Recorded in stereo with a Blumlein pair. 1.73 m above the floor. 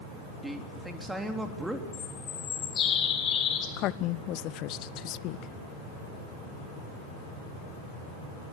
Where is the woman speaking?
35° left, 0.7 m.